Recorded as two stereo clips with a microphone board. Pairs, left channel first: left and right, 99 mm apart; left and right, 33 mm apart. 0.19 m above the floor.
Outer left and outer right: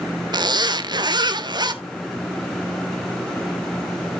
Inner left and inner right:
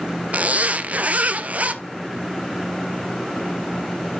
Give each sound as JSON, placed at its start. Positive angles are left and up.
{"t": 0.3, "sound": "a zipper", "side_deg": -50, "distance_m": 0.7}